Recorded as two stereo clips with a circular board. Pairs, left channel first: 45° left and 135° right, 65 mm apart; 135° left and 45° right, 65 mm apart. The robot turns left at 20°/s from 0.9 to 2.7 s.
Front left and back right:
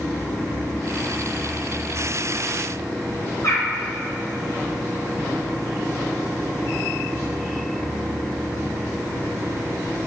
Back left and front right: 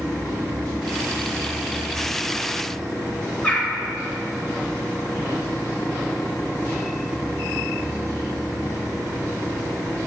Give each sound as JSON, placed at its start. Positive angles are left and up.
{"t": 3.4, "sound": "a bird", "azimuth_deg": 65, "distance_m": 3.0}